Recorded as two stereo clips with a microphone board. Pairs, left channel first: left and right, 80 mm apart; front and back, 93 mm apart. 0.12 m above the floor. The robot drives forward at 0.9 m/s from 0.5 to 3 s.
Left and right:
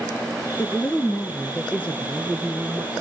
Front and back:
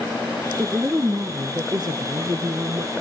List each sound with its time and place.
0.6 s a woman speaking: 125° left, 1.4 m; by 2.9 s 165° left, 3 m